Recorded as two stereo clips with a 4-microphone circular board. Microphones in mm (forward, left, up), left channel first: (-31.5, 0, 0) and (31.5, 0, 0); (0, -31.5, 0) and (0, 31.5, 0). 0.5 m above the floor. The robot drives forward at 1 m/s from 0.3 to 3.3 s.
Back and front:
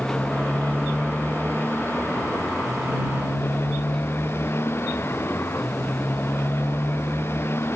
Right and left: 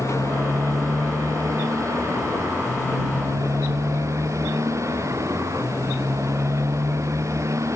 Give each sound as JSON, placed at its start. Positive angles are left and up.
{"t": 0.0, "sound": "a motorcycle", "azimuth_deg": 125}